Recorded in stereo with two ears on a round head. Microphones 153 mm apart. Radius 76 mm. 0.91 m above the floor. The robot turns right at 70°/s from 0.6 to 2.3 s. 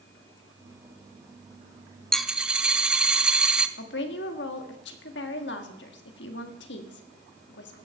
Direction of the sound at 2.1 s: 5° left (ahead or behind).